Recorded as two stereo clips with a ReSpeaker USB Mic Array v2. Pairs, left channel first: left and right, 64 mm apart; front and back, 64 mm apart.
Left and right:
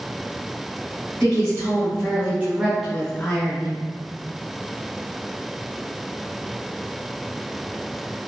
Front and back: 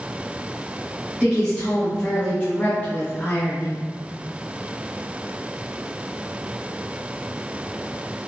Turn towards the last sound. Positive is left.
turn(degrees=50)